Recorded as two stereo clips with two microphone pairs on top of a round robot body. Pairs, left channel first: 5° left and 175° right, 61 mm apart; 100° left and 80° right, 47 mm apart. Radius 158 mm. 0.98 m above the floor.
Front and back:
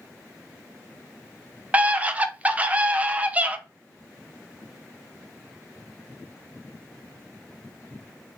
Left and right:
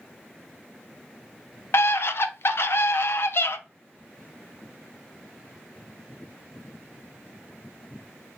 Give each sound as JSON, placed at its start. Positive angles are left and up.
{"t": 1.7, "sound": "a scream", "azimuth_deg": 115, "distance_m": 0.6}